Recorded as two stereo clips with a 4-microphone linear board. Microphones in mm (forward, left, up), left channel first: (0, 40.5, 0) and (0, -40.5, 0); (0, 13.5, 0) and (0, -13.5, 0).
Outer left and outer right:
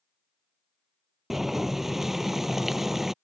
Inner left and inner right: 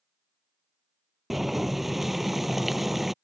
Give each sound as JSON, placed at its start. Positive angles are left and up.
{"t": 1.3, "sound": "boiling", "side_deg": -5}